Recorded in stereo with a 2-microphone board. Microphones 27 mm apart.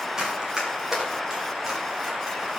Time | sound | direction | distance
0.2 | running footsteps | 20° right (ahead or behind) | 8.5 m